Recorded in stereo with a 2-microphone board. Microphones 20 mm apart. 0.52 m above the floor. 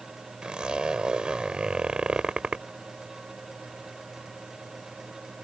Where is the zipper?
50° right (ahead or behind).